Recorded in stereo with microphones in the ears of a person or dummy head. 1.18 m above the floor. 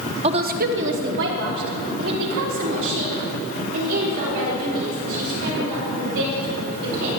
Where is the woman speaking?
25° right (ahead or behind), 0.5 m; by 7.2 s 65° right (ahead or behind), 7.5 m.